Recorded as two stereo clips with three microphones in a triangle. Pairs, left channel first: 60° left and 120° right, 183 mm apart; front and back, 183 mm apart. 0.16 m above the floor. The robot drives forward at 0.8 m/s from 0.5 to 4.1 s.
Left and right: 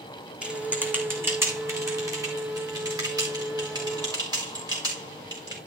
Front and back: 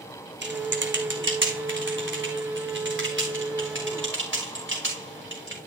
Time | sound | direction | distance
0.4 | typing on a keyboard | 155° left | 1.8 m